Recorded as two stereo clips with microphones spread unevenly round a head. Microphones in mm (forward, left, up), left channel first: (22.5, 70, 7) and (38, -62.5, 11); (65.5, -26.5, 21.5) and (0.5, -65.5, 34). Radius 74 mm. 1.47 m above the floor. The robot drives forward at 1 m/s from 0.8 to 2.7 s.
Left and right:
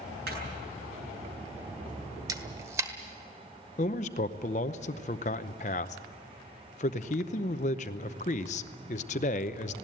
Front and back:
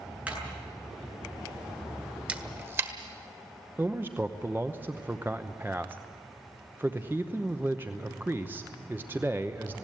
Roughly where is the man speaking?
Behind left.